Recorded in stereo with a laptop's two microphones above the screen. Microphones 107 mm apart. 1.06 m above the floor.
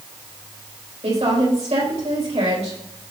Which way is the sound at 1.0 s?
85° right.